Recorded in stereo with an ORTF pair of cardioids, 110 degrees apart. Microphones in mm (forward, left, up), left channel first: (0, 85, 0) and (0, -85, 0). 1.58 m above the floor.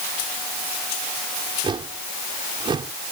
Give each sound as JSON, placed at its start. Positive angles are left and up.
{"t": 1.6, "sound": "a whoosh", "azimuth_deg": -30}